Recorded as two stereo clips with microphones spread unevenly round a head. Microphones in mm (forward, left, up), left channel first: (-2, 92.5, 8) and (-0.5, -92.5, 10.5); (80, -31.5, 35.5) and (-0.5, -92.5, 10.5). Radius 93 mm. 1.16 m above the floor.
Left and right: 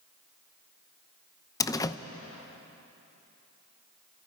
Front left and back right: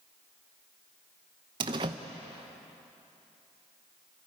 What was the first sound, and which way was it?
A door slam, 165° left.